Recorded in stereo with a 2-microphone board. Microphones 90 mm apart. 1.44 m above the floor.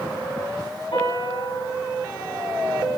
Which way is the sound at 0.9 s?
55° left (ahead or behind).